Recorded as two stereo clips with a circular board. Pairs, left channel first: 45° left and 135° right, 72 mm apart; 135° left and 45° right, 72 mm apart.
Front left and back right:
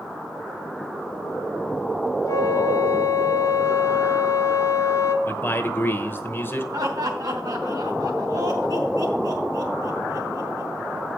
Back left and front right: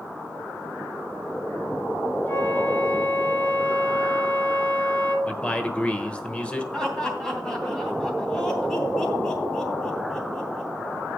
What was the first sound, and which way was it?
A flute, 75° left.